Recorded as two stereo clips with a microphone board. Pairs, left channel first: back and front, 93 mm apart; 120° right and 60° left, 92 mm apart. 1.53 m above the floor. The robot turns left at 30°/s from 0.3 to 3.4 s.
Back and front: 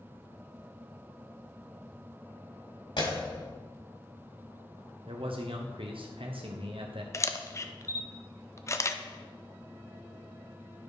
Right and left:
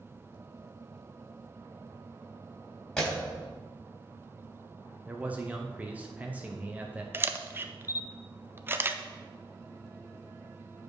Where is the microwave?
I don't hear a microwave.